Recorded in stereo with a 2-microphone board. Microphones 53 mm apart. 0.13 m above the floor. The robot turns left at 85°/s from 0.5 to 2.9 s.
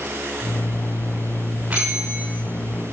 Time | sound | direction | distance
1.7 | a bell | 30° right | 9.5 m